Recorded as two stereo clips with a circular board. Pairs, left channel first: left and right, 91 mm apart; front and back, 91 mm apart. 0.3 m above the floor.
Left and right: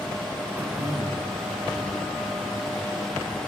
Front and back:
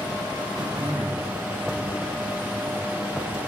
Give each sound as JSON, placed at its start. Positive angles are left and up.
{"t": 0.6, "sound": "throat clearing", "azimuth_deg": -160, "distance_m": 2.5}